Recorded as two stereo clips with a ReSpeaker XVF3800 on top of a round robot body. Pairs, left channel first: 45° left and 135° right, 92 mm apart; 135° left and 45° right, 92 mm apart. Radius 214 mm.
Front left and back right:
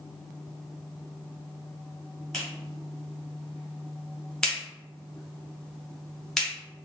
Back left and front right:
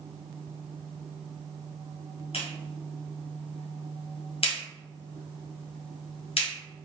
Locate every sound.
2.3 s a clap: 130° left, 1.4 m